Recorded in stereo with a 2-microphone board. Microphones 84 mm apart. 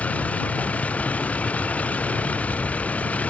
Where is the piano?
I don't hear a piano.